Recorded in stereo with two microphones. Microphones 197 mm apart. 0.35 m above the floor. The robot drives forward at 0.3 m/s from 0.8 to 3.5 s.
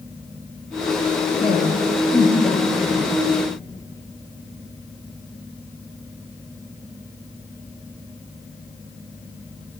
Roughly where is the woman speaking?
Left.